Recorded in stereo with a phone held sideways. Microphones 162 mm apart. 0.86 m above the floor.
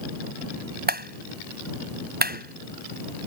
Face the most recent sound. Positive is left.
turn(degrees=-70)  # may be behind; listen again after turning